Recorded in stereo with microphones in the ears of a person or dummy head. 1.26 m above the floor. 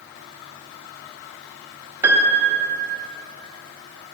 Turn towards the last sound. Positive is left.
turn(degrees=-15)  # may be behind; listen again after turning